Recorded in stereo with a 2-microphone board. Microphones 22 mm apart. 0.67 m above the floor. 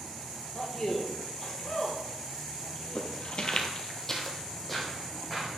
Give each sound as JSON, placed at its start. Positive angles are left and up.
{"t": 0.5, "sound": "a man speaking", "side_deg": 30, "distance_m": 1.7}
{"t": 3.0, "sound": "footsteps", "side_deg": 55, "distance_m": 1.0}